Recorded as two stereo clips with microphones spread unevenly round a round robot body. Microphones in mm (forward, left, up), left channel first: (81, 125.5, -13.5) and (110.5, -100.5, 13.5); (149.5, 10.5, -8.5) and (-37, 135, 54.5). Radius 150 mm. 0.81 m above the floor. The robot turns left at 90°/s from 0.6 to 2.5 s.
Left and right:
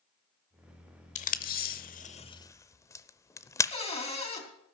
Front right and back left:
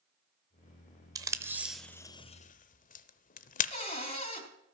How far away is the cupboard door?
About 3.5 m.